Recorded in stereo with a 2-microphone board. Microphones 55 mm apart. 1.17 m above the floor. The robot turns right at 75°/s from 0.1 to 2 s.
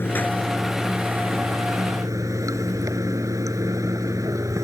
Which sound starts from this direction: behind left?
Running water, at 0.0 s.